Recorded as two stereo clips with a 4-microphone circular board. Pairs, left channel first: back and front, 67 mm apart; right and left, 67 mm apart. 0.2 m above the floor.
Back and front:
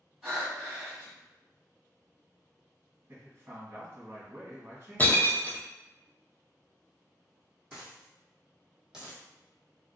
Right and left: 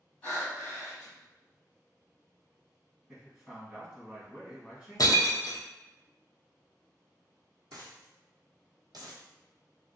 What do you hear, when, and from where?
0.2 s breathing: 70° right, 1.4 m
3.1 s a man speaking: 20° left, 1.4 m
5.0 s breaking glass: 115° right, 0.5 m
7.7 s a dropped coin: 80° left, 1.1 m